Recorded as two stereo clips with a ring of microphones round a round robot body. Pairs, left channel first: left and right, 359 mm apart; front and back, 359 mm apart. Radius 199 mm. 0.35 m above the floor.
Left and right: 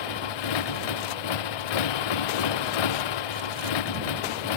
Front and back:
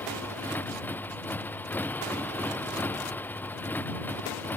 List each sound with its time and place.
0.0 s a motorcycle: 85° left